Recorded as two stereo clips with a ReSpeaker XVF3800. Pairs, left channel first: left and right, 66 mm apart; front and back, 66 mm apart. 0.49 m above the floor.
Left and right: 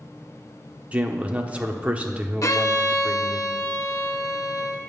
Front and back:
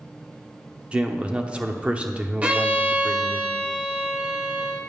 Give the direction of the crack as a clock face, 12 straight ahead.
I don't hear a crack.